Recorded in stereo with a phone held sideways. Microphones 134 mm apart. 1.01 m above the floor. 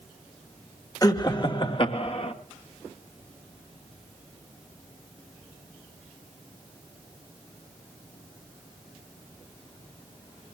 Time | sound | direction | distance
1.0 | laughter | 30° left (ahead or behind) | 1.7 m